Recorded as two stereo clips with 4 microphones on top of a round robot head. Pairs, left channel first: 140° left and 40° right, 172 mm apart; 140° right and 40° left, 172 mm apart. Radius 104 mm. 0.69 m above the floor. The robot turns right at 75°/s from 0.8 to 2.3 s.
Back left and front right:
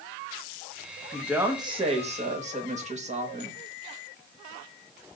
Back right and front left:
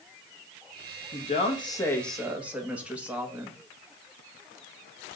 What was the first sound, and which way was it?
A woman speaking, 130° right.